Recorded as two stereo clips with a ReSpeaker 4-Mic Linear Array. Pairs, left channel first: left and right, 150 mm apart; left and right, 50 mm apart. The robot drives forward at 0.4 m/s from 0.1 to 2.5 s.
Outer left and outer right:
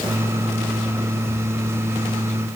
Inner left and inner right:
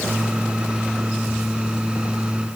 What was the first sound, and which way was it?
Only background noise.